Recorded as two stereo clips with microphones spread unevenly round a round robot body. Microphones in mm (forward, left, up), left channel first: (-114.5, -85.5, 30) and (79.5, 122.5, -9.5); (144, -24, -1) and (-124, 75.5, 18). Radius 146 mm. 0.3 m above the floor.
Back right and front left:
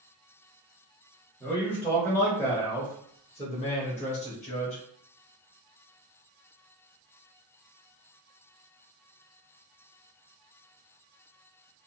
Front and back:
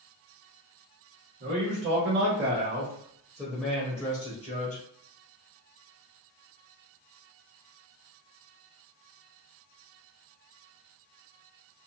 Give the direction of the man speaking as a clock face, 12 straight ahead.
8 o'clock.